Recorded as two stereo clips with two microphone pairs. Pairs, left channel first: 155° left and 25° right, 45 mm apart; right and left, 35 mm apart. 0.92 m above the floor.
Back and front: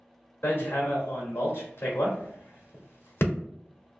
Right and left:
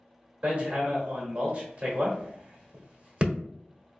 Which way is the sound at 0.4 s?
135° left.